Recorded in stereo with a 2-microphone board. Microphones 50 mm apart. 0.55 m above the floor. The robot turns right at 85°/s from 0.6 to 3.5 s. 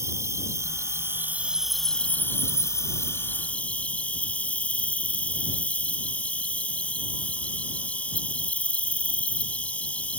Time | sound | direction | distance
0.0 | an insect | 95° right | ?